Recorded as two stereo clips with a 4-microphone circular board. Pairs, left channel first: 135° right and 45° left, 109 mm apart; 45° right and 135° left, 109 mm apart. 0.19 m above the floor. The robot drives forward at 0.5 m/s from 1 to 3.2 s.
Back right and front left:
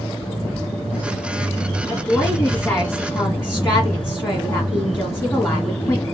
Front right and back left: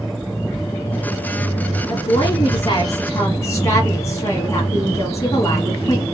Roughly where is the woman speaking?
Ahead right.